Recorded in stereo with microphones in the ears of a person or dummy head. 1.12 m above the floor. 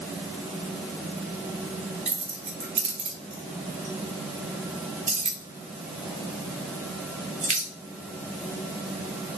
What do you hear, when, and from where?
2.1 s keys jangling: 40° right (ahead or behind), 0.6 m